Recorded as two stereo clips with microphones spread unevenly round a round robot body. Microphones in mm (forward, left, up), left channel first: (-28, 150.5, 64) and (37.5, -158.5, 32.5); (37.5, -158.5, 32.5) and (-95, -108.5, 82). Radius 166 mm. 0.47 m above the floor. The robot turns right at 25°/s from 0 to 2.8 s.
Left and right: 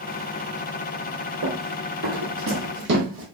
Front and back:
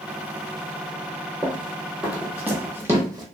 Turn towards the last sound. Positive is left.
turn(degrees=-145)